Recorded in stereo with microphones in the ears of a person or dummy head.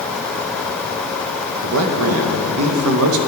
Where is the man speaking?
80° right, 0.8 m.